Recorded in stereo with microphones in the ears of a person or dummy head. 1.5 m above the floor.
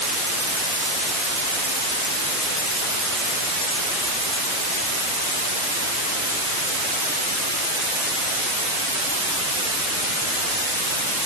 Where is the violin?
I don't hear a violin.